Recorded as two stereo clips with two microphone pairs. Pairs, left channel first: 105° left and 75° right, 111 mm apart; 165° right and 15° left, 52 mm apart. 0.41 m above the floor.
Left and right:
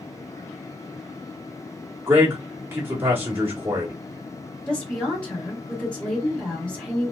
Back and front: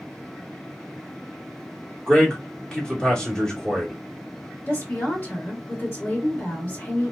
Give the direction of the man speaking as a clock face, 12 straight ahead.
4 o'clock.